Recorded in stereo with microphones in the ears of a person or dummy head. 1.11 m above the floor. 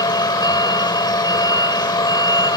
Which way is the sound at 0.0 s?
25° left (ahead or behind).